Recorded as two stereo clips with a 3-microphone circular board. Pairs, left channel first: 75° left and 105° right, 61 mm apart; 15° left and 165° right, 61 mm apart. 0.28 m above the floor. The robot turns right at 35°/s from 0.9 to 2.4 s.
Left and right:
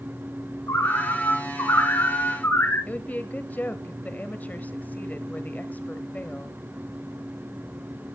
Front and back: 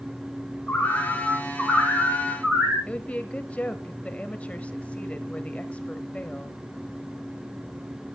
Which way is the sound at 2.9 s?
60° left.